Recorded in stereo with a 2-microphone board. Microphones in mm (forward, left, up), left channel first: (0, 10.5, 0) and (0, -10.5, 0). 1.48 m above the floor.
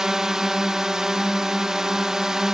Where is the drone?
30° right (ahead or behind).